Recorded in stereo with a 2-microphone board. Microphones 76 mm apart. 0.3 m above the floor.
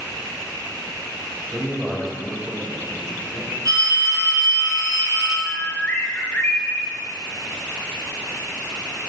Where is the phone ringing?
55° right (ahead or behind), 1.8 m.